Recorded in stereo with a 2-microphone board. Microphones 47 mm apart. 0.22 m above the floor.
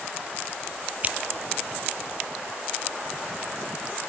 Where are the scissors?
35° right (ahead or behind).